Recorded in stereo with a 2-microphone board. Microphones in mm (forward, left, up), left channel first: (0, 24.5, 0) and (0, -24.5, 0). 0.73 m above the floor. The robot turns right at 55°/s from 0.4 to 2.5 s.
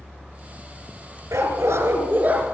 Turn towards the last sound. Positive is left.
turn(degrees=-25)